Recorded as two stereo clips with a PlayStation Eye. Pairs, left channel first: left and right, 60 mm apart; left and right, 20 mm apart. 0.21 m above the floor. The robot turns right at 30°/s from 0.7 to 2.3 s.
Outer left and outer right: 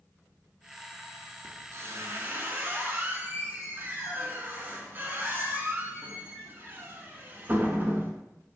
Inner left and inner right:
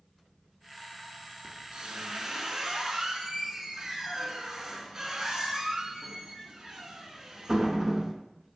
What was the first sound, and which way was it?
A squeak, 55° right (ahead or behind).